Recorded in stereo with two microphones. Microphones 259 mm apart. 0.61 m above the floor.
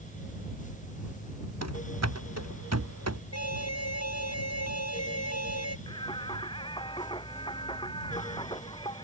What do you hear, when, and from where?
1.6 s running footsteps: 85° right; by 3.2 s 75° right (ahead or behind)
3.3 s an alarm: 75° left (ahead or behind)
5.9 s singing: 20° left (ahead or behind)